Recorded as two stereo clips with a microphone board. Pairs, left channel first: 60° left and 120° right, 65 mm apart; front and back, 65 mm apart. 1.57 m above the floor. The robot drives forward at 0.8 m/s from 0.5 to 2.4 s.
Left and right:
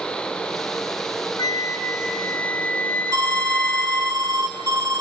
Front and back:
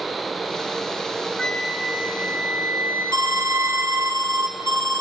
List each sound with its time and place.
1.4 s a flute: 75° left, 0.8 m; by 4.1 s 130° left, 1.0 m
3.1 s an alarm: 150° right, 1.2 m